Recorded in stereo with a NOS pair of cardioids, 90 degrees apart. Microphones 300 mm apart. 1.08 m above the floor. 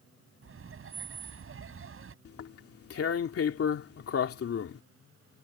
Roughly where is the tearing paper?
Ahead left.